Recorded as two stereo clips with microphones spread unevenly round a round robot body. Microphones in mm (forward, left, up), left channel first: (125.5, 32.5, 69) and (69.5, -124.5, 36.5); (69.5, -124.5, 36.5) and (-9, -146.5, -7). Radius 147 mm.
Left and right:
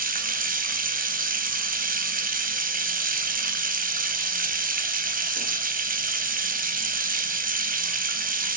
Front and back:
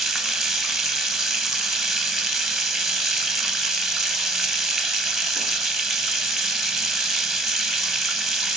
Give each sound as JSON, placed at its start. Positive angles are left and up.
{"t": 0.0, "sound": "running water", "azimuth_deg": -75, "distance_m": 1.7}